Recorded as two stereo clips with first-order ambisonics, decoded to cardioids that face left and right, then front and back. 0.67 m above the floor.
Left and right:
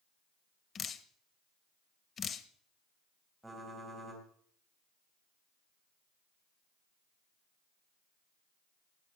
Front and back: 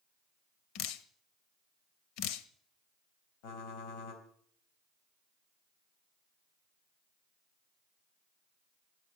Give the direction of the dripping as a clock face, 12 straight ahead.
11 o'clock.